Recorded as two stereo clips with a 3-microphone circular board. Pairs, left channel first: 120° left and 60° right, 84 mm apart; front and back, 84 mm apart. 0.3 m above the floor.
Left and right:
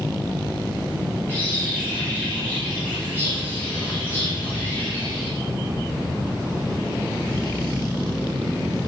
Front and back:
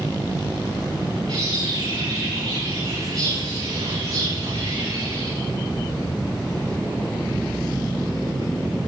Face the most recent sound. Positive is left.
turn(degrees=-170)